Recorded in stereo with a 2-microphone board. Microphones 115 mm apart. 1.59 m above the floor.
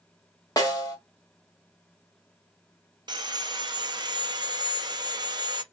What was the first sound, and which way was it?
A snare drum, 30° left (ahead or behind).